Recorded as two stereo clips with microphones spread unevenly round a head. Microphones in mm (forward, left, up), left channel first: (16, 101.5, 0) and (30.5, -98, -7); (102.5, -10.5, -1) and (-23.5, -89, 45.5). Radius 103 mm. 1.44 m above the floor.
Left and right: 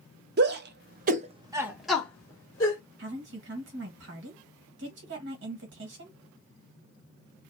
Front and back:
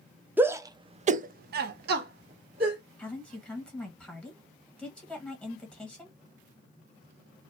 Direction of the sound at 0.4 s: 60° right.